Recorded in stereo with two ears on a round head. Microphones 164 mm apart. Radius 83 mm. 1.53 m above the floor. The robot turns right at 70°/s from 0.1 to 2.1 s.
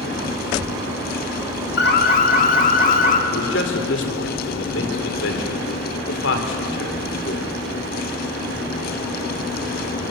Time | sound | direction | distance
1.8 | an alarm | 70° left (ahead or behind) | 2.5 m
3.3 | a man speaking | 70° left (ahead or behind) | 4 m